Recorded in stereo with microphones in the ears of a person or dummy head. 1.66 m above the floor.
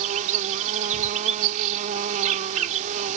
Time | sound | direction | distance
0.0 | an insect | 45° right (ahead or behind) | ?